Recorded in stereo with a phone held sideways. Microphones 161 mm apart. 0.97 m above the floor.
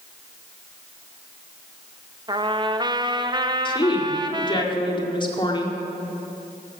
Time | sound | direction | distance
2.3 | a trumpet | 25° right (ahead or behind) | 0.7 m
3.6 | a woman speaking | 30° left (ahead or behind) | 2.0 m